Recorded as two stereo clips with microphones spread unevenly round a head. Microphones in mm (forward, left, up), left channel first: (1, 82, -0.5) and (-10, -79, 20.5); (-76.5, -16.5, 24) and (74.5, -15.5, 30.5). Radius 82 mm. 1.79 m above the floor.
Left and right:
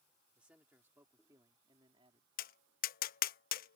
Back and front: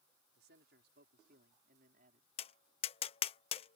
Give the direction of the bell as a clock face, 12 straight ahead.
I don't hear a bell.